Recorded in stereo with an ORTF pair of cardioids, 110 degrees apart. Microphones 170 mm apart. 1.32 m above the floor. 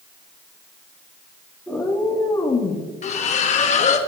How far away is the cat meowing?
About 1.6 m.